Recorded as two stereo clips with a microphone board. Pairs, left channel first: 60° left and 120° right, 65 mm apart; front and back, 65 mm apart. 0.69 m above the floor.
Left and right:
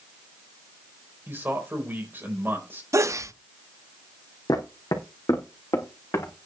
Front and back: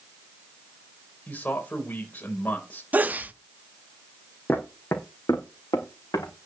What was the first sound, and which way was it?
A man speaking, 65° right.